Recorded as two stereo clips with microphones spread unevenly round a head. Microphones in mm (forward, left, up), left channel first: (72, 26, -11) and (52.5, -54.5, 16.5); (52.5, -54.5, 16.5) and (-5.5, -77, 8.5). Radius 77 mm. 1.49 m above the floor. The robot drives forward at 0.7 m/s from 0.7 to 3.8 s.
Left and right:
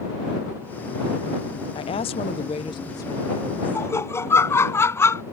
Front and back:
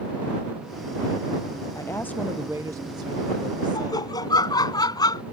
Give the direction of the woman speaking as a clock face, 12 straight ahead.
10 o'clock.